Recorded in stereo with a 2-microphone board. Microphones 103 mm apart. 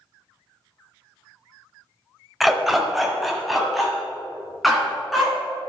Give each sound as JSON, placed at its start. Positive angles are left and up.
{"t": 2.4, "sound": "a dog barking", "side_deg": -5, "distance_m": 0.9}